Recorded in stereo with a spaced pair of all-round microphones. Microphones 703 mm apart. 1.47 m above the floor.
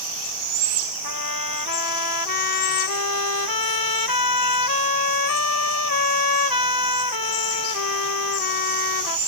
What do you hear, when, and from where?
1.0 s a trumpet: 30° left (ahead or behind)